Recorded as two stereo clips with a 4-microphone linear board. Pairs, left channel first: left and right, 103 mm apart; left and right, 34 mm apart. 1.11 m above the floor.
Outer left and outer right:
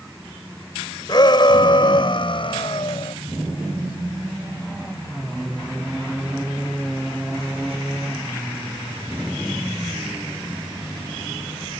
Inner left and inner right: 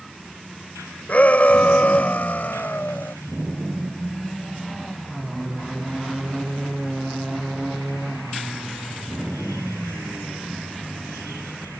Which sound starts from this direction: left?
A shout, at 1.1 s.